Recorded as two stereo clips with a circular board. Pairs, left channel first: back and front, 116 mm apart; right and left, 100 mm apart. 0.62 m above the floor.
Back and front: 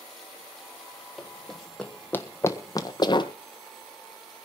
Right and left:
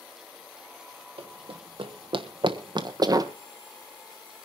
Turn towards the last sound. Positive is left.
turn(degrees=140)